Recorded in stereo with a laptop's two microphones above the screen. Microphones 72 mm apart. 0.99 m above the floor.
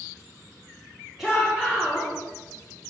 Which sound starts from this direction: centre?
A shout, at 1.2 s.